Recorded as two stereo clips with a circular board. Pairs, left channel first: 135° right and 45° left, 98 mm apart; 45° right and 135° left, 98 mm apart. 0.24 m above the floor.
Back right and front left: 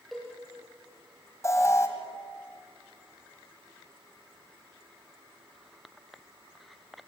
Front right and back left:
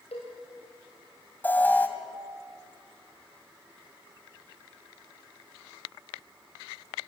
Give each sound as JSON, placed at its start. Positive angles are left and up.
{"t": 0.1, "sound": "a cowbell", "azimuth_deg": -45, "distance_m": 7.0}
{"t": 1.4, "sound": "an alarm", "azimuth_deg": -105, "distance_m": 2.0}